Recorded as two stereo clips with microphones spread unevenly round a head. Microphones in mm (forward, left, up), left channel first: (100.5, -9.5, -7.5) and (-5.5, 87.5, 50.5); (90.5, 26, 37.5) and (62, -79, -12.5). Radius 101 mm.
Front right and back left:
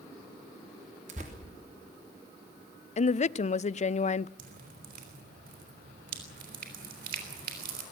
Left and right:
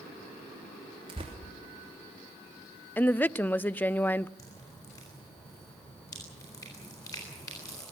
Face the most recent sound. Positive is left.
turn(degrees=140)